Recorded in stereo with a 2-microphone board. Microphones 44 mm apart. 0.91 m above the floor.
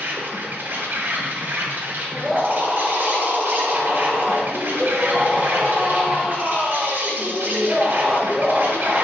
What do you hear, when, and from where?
0.0 s an insect: 50° right (ahead or behind), 0.8 m
2.1 s a scream: 15° right (ahead or behind), 1.1 m